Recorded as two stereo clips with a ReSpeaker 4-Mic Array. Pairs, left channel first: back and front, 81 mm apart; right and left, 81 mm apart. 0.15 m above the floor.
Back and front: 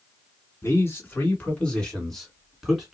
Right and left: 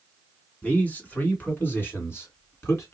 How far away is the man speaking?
About 1.8 m.